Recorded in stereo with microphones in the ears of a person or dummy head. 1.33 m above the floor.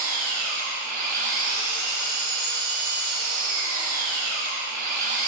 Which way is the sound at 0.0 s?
50° right (ahead or behind).